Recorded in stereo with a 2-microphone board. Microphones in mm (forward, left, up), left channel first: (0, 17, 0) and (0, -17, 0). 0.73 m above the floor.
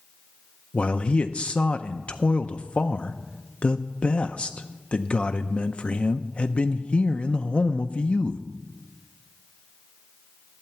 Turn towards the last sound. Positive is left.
turn(degrees=35)  # may be behind; listen again after turning